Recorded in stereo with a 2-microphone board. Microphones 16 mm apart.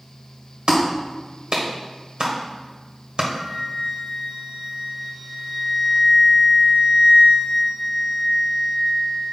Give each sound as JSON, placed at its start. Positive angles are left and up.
{"t": 0.7, "sound": "a clap", "side_deg": -70, "distance_m": 1.4}
{"t": 3.3, "sound": "a flute", "side_deg": -70, "distance_m": 2.5}